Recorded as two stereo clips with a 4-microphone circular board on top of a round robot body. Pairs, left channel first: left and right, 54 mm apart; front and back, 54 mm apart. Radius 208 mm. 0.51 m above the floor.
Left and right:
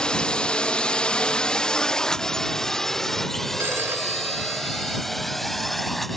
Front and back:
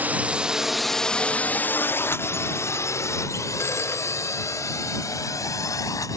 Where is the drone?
155° left; by 6.2 s 5° left.